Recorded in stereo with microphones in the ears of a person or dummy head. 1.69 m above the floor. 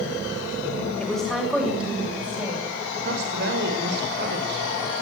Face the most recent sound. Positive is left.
turn(degrees=-60)  # may be behind; listen again after turning